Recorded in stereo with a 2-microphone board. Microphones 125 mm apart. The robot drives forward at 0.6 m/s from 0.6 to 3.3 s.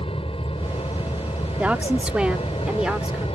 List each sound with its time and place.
0.0 s an aircraft: 50° left (ahead or behind); by 3.4 s 55° left (ahead or behind)
1.6 s a woman speaking: 10° right (ahead or behind); by 3.2 s 5° right (ahead or behind)